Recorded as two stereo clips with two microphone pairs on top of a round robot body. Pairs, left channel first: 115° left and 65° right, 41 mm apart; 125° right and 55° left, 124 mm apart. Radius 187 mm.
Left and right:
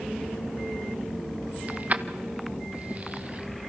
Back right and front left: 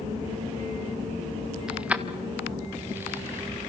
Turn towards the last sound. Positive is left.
turn(degrees=-20)